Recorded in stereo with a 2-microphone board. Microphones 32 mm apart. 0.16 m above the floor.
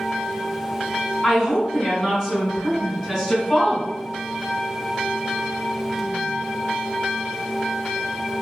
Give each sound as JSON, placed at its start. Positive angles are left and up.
{"t": 1.2, "sound": "a woman speaking", "side_deg": -15, "distance_m": 1.8}